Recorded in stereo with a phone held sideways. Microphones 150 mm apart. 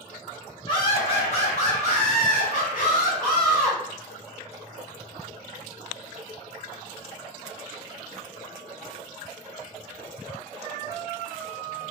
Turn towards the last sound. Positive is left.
turn(degrees=70)  # may be behind; listen again after turning